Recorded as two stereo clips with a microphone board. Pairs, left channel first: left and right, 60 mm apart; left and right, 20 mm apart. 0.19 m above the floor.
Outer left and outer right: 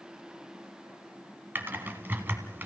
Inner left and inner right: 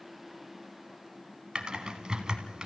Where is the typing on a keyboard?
35° right (ahead or behind), 1.8 m.